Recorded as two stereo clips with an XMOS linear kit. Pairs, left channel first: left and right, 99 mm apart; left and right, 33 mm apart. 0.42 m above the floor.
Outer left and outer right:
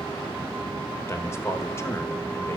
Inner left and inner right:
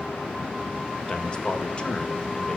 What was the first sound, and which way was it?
A man speaking, 25° left (ahead or behind).